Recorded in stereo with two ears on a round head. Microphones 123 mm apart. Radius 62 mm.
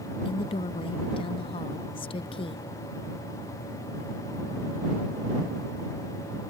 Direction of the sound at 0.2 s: 40° left (ahead or behind).